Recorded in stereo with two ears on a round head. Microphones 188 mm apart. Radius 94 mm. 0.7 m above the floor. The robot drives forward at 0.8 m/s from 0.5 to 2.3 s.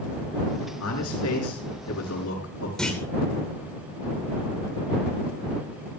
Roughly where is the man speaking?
Left.